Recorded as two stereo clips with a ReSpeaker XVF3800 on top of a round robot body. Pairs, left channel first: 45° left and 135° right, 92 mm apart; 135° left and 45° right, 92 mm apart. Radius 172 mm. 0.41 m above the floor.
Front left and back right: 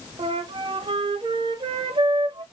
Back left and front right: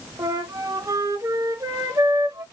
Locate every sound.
0.2 s a flute: 105° right, 0.7 m